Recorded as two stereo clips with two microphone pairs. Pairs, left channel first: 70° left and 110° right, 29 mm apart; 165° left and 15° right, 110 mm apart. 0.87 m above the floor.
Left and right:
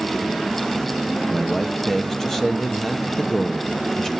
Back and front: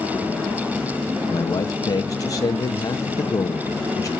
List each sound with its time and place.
1.3 s a man speaking: 130° left, 1.1 m